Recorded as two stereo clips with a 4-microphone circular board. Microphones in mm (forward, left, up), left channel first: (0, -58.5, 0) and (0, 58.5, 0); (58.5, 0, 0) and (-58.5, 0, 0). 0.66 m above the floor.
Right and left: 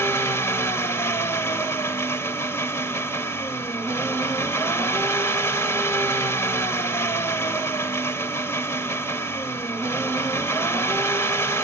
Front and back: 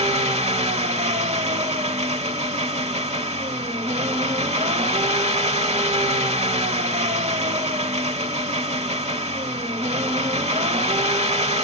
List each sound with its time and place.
0.0 s an engine running: 155° right, 1.5 m